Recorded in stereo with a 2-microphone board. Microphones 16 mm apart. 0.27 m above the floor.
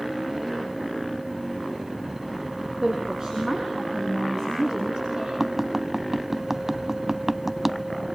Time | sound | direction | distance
2.8 | a woman speaking | 40° right (ahead or behind) | 8 m
5.4 | tapping | 20° right (ahead or behind) | 0.5 m